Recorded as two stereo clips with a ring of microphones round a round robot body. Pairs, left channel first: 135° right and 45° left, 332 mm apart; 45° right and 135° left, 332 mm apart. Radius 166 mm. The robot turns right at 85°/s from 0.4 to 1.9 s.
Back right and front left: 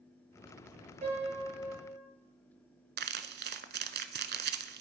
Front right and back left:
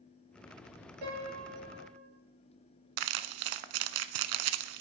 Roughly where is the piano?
Behind left.